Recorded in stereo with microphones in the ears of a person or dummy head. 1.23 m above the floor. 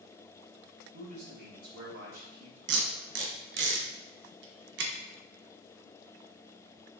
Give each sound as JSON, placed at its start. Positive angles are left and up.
{"t": 0.9, "sound": "a man speaking", "side_deg": -55, "distance_m": 2.0}
{"t": 2.7, "sound": "tape being pulled", "side_deg": -60, "distance_m": 0.8}